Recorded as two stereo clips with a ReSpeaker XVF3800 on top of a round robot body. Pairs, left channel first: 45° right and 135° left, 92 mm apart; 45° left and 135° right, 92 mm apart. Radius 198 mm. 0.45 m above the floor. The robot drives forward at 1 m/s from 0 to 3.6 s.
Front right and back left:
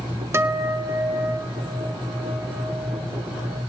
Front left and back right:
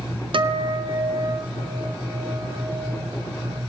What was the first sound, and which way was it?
A guitar, 160° right.